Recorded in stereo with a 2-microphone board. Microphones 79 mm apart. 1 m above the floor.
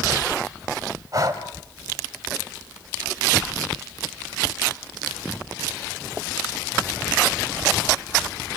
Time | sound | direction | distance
1.1 | breathing | 45° right (ahead or behind) | 2.5 m